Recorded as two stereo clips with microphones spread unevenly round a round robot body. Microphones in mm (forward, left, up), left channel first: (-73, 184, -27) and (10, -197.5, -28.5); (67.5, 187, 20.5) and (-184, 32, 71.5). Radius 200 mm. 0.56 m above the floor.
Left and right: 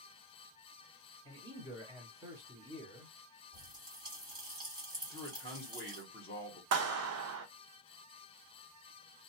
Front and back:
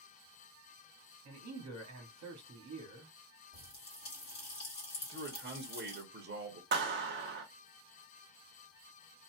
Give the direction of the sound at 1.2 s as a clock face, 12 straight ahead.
5 o'clock.